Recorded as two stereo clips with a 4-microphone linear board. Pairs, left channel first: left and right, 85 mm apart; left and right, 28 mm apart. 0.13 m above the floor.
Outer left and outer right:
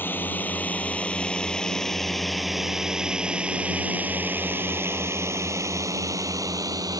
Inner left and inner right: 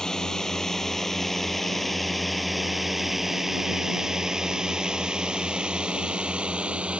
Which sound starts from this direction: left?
A drone, at 0.0 s.